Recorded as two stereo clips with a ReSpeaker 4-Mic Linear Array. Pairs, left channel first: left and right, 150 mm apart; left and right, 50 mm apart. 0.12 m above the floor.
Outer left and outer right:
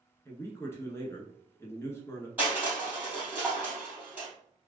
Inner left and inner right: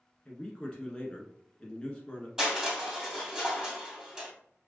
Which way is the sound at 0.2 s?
20° left (ahead or behind).